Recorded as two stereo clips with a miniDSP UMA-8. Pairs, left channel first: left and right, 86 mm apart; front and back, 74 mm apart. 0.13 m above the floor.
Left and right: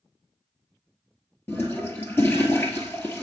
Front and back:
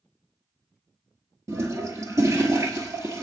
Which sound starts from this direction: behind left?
A toilet flushing, at 1.5 s.